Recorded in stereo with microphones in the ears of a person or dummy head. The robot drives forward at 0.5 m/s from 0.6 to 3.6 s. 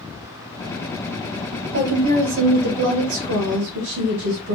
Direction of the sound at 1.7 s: 65° right (ahead or behind).